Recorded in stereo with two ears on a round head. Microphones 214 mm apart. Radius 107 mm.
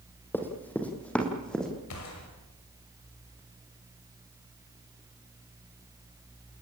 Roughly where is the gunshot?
Left.